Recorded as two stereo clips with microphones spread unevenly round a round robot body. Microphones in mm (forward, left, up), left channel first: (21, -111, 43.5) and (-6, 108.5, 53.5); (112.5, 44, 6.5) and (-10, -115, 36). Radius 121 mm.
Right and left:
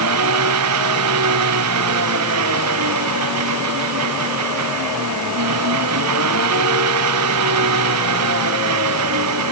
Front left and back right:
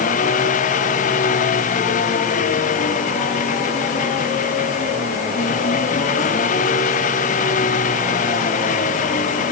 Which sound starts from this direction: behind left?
An engine running, at 0.0 s.